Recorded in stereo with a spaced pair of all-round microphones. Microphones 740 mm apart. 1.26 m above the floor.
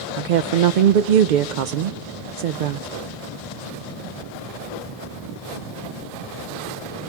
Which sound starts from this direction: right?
A woman speaking, at 0.2 s.